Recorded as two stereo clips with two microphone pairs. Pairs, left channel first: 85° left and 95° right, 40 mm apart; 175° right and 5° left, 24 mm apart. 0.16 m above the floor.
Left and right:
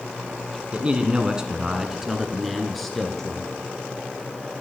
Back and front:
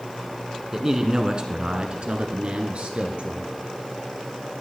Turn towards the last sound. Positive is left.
turn(degrees=5)